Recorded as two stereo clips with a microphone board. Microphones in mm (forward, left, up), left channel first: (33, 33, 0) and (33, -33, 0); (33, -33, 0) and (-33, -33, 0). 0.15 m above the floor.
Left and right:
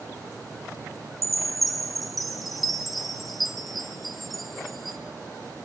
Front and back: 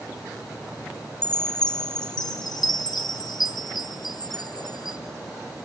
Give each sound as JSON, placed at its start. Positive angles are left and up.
{"t": 1.2, "sound": "a chime", "azimuth_deg": 0, "distance_m": 1.3}